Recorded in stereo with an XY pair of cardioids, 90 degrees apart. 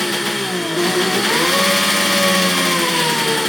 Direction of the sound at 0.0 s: 5° left.